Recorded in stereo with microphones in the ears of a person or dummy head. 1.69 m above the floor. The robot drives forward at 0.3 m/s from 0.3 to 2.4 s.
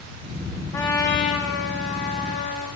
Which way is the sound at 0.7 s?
20° left (ahead or behind).